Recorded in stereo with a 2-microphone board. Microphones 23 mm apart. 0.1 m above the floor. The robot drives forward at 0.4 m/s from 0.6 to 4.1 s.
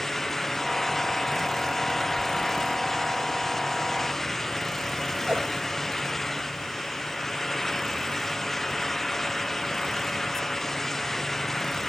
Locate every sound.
5.3 s a whoosh: 80° right, 3.5 m